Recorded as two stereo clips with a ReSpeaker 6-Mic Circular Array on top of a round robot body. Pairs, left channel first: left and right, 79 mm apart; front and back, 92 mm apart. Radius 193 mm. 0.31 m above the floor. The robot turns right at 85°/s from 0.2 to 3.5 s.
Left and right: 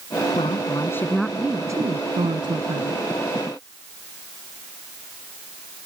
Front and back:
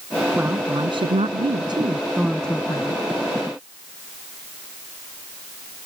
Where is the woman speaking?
105° left; by 3.0 s 30° right.